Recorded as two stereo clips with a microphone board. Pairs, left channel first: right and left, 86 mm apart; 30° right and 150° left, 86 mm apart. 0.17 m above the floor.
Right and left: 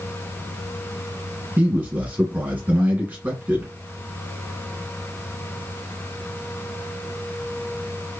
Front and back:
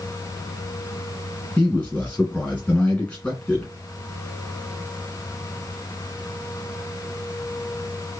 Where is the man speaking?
35° left, 1.8 m.